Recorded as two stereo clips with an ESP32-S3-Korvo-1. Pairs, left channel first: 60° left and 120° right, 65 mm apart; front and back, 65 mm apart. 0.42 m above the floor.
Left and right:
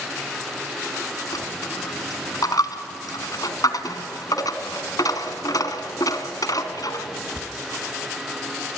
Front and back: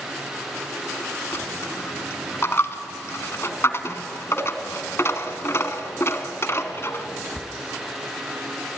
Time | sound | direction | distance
1.3 | a dropped coin | 55° left | 1.6 m